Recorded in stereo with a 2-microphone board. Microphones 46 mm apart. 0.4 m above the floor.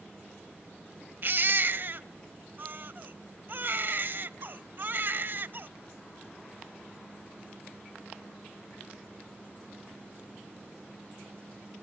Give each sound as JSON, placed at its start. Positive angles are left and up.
{"t": 1.2, "sound": "a baby crying", "side_deg": -45, "distance_m": 0.5}